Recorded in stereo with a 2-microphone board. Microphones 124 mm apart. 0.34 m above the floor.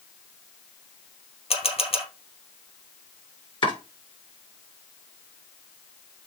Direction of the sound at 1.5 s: 55° left (ahead or behind).